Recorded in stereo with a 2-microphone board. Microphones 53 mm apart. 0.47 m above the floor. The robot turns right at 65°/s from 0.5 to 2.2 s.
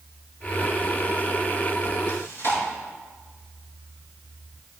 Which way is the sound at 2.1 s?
70° left (ahead or behind).